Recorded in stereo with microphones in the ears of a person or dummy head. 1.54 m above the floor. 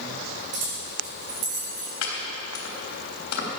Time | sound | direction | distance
0.5 | keys jangling | 45° right (ahead or behind) | 4 m
2.0 | chopping | 75° left (ahead or behind) | 3.5 m